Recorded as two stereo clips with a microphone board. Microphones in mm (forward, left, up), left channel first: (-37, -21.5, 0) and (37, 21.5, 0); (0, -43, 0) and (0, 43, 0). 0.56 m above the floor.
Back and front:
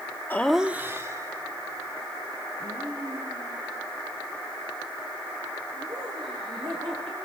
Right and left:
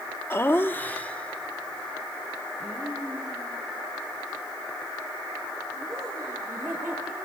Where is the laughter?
110° right, 0.7 m; by 7.2 s 5° right, 10 m.